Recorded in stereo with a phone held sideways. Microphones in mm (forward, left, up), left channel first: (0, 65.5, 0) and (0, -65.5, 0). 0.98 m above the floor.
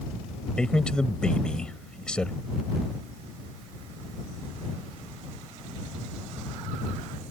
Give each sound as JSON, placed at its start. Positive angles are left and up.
{"t": 0.6, "sound": "a man speaking", "side_deg": 5}